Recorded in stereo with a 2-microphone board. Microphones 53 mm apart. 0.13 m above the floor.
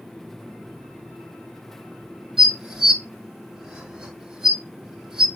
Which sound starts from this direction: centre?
Dishes clattering, at 2.4 s.